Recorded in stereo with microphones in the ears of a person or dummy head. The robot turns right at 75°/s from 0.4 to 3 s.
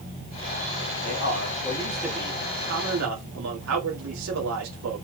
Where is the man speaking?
110° left, 2.5 m; by 5.0 s 105° right, 2.5 m.